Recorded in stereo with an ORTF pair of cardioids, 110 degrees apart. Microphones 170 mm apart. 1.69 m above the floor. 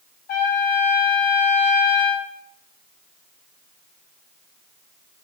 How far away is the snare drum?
No snare drum in this recording.